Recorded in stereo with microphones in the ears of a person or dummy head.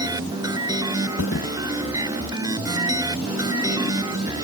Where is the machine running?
20° right (ahead or behind).